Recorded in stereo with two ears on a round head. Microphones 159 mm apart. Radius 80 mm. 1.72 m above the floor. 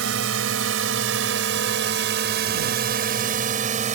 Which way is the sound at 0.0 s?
90° right.